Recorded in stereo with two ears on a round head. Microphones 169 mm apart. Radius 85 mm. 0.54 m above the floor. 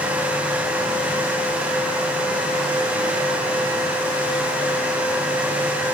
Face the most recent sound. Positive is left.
No sound to turn to.